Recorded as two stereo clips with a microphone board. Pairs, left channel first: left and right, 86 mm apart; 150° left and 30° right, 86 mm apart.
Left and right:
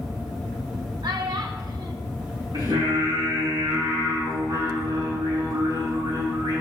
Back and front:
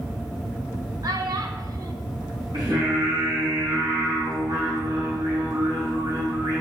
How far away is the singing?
About 6 m.